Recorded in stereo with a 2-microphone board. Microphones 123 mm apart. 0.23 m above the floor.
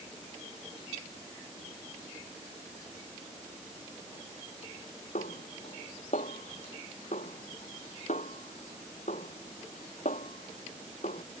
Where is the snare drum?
75° left (ahead or behind).